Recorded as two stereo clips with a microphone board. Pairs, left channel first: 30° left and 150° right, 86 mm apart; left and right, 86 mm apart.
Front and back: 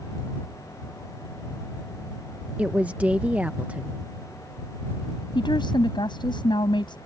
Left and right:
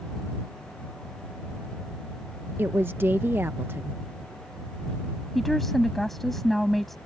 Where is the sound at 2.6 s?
100° right.